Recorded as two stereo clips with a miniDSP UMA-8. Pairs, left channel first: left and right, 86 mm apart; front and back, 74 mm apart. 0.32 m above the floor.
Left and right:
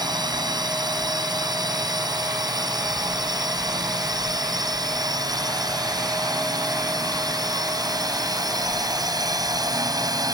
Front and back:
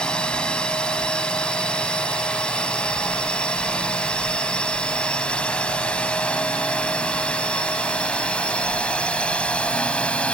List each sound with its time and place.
0.0 s a drone: 75° right; by 10.3 s 70° right